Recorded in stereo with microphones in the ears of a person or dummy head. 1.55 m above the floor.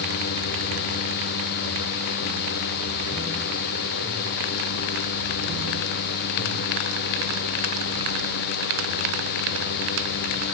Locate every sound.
Only background noise.